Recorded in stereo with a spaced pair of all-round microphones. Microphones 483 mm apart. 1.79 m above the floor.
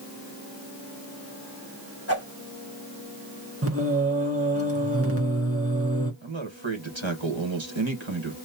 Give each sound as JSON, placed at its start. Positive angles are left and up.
{"t": 2.1, "sound": "a whoosh", "side_deg": 30, "distance_m": 1.8}
{"t": 3.6, "sound": "singing", "side_deg": -30, "distance_m": 1.5}
{"t": 6.2, "sound": "a man speaking", "side_deg": -70, "distance_m": 1.7}